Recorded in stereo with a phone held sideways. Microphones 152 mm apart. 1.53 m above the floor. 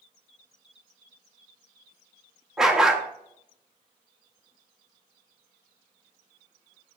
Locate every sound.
2.6 s a dog barking: 5° right (ahead or behind), 1.0 m